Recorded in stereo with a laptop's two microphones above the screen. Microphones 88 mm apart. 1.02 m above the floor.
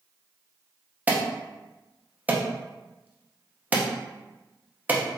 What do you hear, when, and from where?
1.1 s an alarm: 20° right (ahead or behind), 0.7 m